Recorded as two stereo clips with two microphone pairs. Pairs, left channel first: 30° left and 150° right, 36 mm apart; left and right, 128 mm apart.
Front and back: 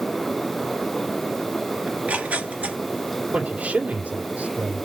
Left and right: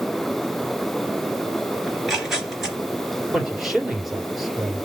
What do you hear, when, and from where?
1.9 s tearing paper: straight behind, 2 m
3.3 s a man speaking: straight behind, 2.5 m